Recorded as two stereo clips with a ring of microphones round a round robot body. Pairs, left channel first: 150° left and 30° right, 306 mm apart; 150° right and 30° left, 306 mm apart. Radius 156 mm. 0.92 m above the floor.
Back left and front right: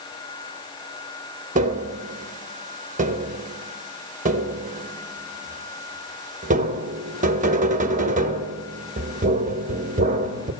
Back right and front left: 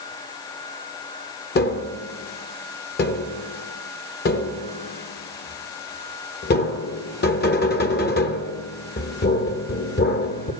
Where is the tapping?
95° right, 1.0 m.